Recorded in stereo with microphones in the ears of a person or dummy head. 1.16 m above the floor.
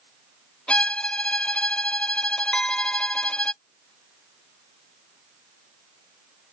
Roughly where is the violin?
Centre.